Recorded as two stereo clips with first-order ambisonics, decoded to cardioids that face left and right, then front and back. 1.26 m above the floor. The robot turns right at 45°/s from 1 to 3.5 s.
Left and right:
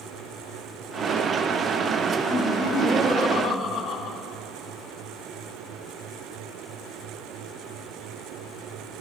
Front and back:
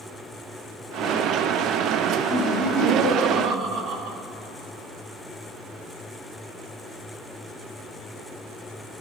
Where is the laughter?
80° left, 3.5 m; by 4.2 s 135° left, 3.5 m.